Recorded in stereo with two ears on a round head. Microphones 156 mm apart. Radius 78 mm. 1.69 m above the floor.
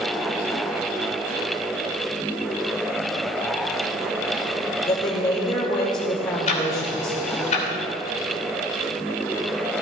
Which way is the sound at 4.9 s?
30° left (ahead or behind).